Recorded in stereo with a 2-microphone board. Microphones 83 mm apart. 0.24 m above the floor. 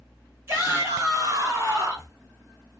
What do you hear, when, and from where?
0.5 s a shout: 35° right (ahead or behind), 2 m